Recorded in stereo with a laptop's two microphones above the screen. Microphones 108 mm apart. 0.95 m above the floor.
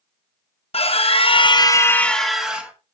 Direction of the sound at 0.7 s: 65° left (ahead or behind).